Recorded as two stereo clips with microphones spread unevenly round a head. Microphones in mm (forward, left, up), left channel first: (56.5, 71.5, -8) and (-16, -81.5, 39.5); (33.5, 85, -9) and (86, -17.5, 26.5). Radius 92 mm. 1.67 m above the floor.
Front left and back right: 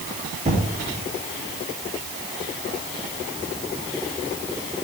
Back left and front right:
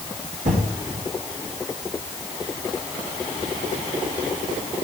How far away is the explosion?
About 3.5 m.